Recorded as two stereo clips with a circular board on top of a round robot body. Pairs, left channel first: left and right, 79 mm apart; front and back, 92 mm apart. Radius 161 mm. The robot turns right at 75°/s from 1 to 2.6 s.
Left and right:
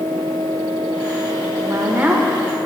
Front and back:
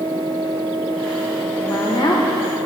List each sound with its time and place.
1.6 s a woman speaking: 55° right, 1.9 m; by 2.2 s 5° right, 1.9 m